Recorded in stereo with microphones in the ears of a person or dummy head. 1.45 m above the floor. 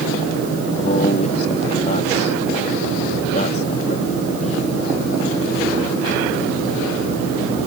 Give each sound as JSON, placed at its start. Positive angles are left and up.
{"t": 0.8, "sound": "a man speaking", "side_deg": 40}